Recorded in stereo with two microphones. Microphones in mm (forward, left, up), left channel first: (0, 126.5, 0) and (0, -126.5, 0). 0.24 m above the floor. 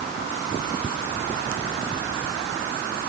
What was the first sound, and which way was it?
Only background noise.